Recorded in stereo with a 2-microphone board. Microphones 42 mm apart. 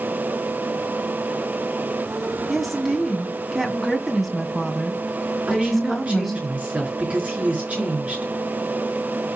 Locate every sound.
2.5 s a woman speaking: centre (ahead or behind), 2.5 m
5.5 s a woman speaking: 35° right (ahead or behind), 5 m